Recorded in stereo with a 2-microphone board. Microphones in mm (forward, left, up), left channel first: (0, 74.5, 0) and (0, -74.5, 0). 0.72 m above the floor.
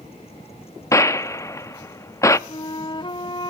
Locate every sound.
0.9 s a gunshot: 20° left (ahead or behind), 0.5 m
2.5 s a flute: 35° left (ahead or behind), 0.6 m